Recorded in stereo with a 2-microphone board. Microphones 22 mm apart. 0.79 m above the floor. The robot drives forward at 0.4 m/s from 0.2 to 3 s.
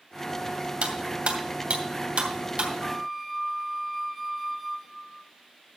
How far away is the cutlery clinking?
About 2 m.